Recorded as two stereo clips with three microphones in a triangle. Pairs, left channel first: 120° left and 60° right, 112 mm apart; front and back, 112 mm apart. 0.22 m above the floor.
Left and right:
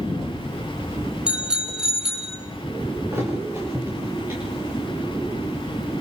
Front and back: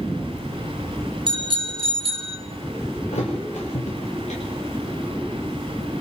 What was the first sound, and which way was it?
A bicycle bell, 140° right.